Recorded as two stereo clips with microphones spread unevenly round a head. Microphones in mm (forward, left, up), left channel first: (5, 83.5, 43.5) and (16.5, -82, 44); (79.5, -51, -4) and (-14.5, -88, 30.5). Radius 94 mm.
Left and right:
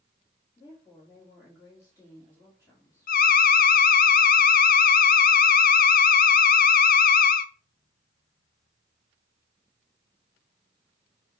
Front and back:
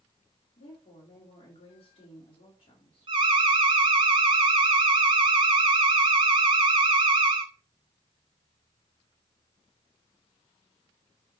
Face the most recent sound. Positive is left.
turn(degrees=135)